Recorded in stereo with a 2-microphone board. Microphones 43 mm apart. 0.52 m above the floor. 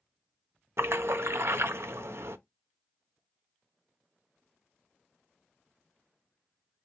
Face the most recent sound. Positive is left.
turn(degrees=-70)  # may be behind; listen again after turning